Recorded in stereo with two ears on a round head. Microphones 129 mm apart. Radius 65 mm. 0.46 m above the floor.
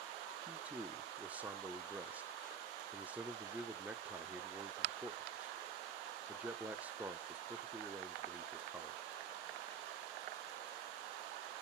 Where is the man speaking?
10° right (ahead or behind), 0.9 m.